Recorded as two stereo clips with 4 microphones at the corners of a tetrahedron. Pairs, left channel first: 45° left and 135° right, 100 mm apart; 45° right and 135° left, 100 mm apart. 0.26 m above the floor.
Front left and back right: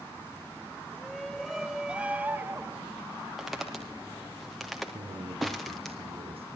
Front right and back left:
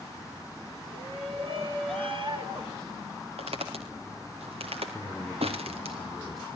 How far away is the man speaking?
About 6.5 m.